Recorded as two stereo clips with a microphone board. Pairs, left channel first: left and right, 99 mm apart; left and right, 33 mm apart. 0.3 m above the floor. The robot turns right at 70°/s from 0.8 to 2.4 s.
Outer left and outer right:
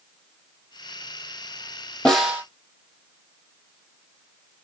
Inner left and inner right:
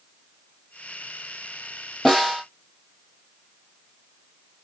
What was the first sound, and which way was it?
A snare drum, 10° left (ahead or behind).